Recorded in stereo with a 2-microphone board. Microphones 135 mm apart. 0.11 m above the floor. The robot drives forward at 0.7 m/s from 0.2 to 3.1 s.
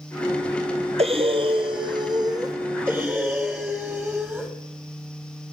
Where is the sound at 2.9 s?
15° right (ahead or behind), 2.5 m.